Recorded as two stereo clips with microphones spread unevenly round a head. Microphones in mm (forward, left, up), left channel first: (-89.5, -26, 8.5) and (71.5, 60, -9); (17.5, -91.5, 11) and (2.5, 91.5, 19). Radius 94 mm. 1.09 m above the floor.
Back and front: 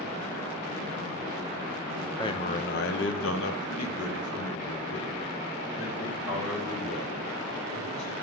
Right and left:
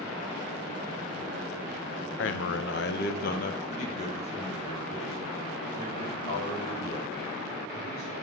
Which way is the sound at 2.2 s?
80° right.